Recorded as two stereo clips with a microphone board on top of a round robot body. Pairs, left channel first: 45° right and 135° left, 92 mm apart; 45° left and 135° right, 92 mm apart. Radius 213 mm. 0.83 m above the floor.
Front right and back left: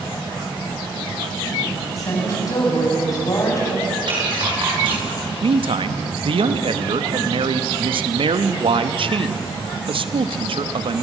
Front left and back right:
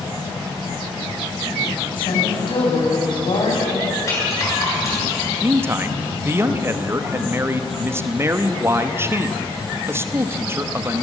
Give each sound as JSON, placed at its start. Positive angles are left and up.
{"t": 2.0, "sound": "a woman speaking", "azimuth_deg": 10, "distance_m": 7.0}
{"t": 4.1, "sound": "a rattle", "azimuth_deg": 105, "distance_m": 8.5}
{"t": 5.4, "sound": "a man speaking", "azimuth_deg": 160, "distance_m": 1.2}